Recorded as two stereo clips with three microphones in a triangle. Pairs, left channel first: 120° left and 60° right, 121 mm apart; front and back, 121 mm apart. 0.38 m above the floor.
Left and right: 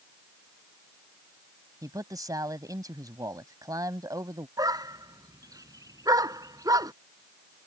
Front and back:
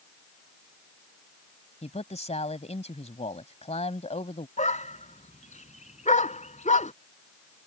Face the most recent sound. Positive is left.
turn(degrees=0)